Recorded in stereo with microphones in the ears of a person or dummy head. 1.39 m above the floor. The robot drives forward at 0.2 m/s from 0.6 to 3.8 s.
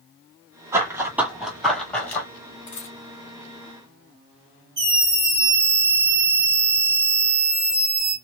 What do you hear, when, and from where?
0.7 s running footsteps: 20° right (ahead or behind), 1.8 m; by 2.3 s 15° left (ahead or behind), 1.4 m
2.7 s a dropped coin: 20° left (ahead or behind), 0.8 m
4.8 s a scream: 50° right (ahead or behind), 1.0 m